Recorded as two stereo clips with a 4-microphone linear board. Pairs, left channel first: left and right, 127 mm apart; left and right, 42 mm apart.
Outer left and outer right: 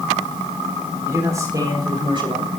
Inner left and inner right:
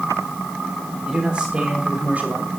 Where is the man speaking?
20° right (ahead or behind), 4.5 m; by 2.5 s 45° right (ahead or behind), 3 m.